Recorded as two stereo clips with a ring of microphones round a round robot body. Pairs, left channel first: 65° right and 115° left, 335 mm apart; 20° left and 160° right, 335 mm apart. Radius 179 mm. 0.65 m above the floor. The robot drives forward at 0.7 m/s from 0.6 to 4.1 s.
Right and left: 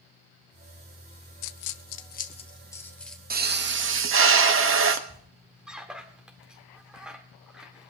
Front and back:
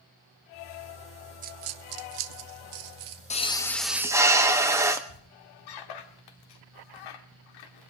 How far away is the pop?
About 1.1 m.